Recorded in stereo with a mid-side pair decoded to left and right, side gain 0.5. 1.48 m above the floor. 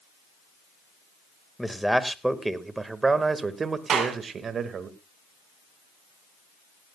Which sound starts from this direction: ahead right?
A clap, at 3.9 s.